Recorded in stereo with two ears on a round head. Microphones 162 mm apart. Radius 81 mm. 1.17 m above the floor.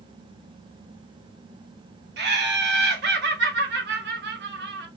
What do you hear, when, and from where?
2.2 s laughter: 65° right (ahead or behind), 1.1 m